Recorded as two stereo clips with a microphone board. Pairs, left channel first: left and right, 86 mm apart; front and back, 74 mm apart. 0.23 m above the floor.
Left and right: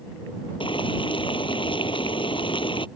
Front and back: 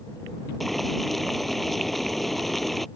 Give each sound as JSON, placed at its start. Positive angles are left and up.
{"t": 0.6, "sound": "boiling", "azimuth_deg": 90}